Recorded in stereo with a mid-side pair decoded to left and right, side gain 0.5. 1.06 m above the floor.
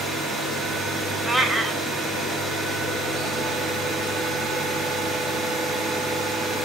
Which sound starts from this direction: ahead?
A cat meowing, at 1.3 s.